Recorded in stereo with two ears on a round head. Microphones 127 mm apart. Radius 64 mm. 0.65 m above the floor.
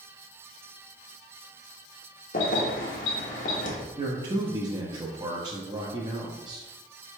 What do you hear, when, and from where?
2.3 s keys jangling: 60° left (ahead or behind), 1.1 m
4.0 s a man speaking: 30° right (ahead or behind), 0.6 m